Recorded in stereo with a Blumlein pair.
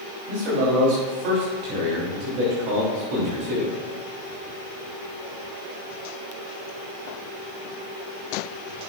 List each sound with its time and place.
0.3 s a man speaking: 45° right, 3.5 m